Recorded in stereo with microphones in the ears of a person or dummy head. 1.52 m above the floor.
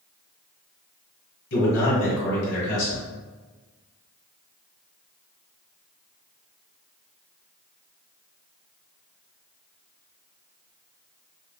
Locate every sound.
1.5 s a man speaking: 55° left (ahead or behind), 1.6 m